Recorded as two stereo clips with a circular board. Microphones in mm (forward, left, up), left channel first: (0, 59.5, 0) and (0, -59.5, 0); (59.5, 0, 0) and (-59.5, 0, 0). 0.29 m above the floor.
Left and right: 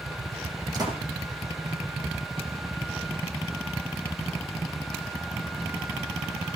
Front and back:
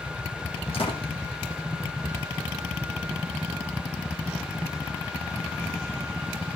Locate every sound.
0.7 s a door slam: 35° right, 7.5 m